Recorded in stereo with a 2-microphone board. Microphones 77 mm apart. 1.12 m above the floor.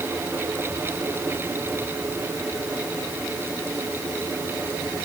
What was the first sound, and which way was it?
Only background noise.